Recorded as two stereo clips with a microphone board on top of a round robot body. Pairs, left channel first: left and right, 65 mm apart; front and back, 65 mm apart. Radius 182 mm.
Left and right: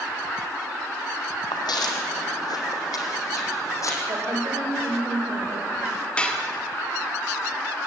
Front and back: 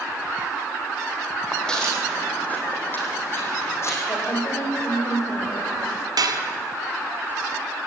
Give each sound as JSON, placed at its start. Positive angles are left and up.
{"t": 1.5, "sound": "footsteps", "azimuth_deg": 85, "distance_m": 2.0}
{"t": 4.1, "sound": "a woman speaking", "azimuth_deg": -45, "distance_m": 3.5}
{"t": 6.2, "sound": "dishes clattering", "azimuth_deg": 165, "distance_m": 1.4}